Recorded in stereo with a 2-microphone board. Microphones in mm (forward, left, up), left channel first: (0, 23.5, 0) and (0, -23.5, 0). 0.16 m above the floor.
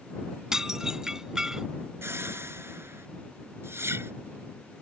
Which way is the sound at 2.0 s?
60° right (ahead or behind).